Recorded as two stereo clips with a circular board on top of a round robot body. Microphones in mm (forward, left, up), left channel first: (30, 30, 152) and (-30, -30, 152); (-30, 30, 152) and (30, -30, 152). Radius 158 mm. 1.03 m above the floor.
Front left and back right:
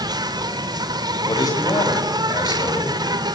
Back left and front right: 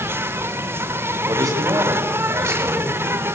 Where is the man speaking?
5° left, 7 m.